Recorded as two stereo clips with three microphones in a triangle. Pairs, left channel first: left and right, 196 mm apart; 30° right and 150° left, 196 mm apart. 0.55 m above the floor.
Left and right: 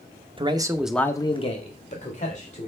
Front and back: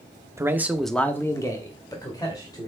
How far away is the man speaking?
About 0.8 m.